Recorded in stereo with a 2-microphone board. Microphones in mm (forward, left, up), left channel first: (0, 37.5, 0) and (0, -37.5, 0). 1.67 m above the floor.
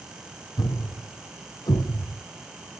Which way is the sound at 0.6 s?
65° left (ahead or behind).